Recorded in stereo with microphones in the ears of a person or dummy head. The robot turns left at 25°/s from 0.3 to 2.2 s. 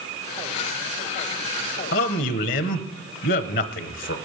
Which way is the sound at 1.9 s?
50° left (ahead or behind).